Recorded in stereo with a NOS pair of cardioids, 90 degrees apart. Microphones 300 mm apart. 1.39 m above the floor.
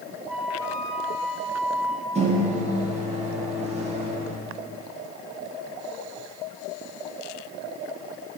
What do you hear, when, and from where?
0.3 s a flute: 5° right, 1.1 m
2.1 s a microwave: 20° right, 1.8 m